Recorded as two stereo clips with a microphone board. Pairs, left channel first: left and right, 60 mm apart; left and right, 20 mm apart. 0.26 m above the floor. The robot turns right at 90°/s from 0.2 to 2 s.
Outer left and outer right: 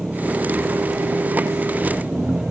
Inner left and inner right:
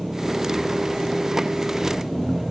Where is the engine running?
175° right; by 2.5 s 10° right.